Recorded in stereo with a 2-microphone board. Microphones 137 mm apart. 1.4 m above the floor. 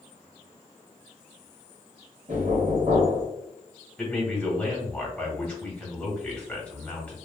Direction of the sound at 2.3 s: 70° right (ahead or behind).